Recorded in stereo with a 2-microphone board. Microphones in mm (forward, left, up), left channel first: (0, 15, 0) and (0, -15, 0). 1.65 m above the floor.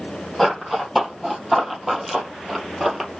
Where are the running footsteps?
Centre (ahead or behind), 3 m; by 3.1 s 10° right (ahead or behind), 2.0 m.